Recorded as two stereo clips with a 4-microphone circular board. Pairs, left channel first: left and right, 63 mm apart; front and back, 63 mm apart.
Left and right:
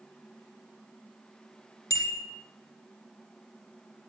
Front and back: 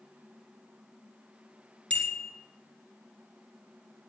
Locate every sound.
1.9 s a bicycle bell: 70° left, 3 m